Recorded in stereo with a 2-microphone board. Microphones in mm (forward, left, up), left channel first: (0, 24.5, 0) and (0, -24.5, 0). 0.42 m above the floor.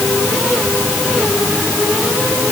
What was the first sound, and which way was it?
Only background noise.